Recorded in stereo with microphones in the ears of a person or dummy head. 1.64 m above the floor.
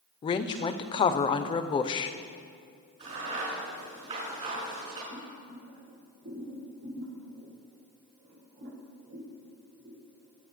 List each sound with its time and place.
0.2 s a woman speaking: 30° left (ahead or behind), 0.5 m
3.0 s a crack: 30° right (ahead or behind), 5 m
5.1 s boiling: 65° right (ahead or behind), 4 m